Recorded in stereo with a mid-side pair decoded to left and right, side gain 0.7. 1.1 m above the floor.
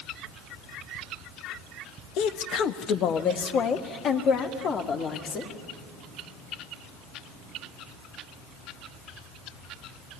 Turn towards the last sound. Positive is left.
turn(degrees=40)